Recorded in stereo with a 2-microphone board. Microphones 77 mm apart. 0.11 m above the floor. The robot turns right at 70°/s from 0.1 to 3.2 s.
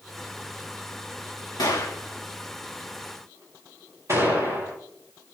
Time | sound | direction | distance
1.6 | a gunshot | 70° left (ahead or behind) | 7.5 m